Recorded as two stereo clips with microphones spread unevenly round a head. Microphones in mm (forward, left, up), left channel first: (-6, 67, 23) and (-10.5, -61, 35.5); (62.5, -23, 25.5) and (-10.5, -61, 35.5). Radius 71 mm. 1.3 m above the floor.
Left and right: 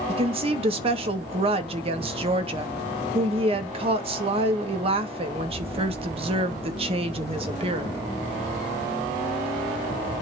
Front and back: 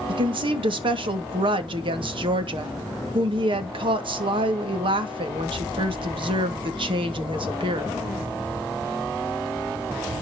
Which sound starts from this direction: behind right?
A woman speaking, at 0.1 s.